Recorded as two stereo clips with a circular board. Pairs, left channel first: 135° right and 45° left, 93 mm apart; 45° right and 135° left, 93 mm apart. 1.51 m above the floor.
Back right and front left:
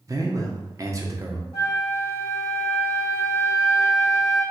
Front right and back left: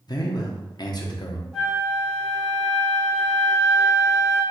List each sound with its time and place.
0.1 s a man speaking: 5° right, 0.7 m
1.5 s a flute: 135° right, 1.7 m